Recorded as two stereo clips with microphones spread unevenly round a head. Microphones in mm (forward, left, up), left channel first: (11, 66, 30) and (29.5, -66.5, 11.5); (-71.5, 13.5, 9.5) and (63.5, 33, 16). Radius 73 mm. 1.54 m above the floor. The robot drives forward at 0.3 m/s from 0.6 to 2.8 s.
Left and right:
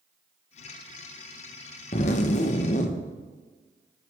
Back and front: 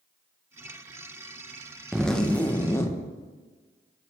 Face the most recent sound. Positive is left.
turn(degrees=120)